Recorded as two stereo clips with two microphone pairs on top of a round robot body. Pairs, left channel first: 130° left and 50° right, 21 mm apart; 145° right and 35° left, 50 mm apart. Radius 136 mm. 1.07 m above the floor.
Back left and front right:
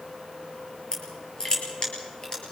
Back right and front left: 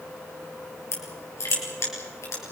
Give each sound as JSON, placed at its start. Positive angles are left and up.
{"t": 0.9, "sound": "crushing", "azimuth_deg": -170, "distance_m": 4.0}